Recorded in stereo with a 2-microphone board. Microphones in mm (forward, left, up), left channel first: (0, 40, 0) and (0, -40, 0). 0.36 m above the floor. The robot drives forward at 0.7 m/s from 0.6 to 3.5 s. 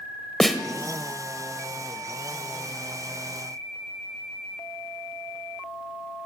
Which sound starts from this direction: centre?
A snare drum, at 0.4 s.